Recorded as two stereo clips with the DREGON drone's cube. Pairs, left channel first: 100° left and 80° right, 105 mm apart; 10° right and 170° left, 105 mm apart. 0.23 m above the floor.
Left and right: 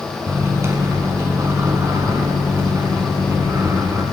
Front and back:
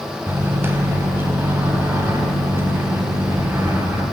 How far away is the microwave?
About 1.5 m.